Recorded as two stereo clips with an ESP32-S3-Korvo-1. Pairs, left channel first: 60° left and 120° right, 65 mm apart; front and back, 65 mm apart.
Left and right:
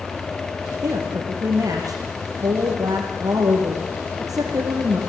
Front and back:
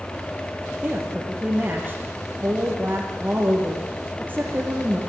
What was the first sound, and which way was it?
A woman speaking, 120° right.